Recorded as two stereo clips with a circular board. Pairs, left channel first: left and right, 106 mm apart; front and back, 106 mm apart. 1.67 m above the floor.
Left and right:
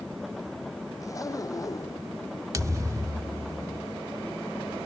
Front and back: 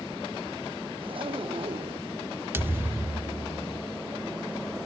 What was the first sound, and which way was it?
A zipper, 145° left.